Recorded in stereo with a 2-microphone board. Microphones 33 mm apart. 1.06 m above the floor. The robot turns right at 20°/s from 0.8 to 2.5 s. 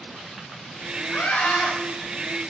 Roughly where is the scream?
Left.